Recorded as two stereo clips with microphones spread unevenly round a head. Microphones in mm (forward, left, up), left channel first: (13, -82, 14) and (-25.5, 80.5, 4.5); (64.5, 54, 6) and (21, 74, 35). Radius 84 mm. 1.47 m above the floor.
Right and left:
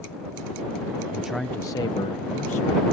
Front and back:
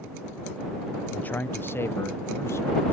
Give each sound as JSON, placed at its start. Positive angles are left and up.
{"t": 1.1, "sound": "a man speaking", "azimuth_deg": 25}